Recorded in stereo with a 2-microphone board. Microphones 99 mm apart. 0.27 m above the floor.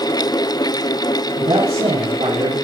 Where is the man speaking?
75° right (ahead or behind), 8 m.